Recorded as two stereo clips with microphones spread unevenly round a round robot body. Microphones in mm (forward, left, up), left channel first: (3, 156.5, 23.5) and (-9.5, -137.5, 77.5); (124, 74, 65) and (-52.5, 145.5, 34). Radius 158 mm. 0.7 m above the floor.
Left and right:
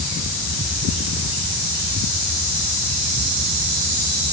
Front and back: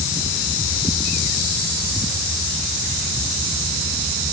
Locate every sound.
Only background noise.